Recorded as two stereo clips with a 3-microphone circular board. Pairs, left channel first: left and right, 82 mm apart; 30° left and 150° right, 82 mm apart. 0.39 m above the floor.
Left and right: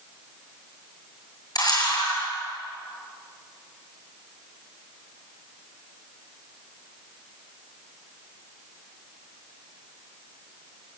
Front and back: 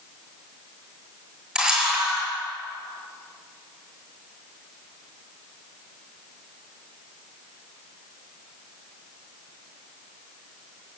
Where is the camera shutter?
130° left, 8.5 m.